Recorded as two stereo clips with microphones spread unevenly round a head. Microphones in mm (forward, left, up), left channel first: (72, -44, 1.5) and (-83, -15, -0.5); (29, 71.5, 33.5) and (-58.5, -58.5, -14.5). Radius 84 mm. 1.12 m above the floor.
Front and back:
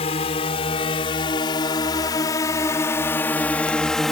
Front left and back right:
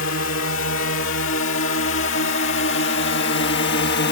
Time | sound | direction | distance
0.0 | a drone | 45° left | ?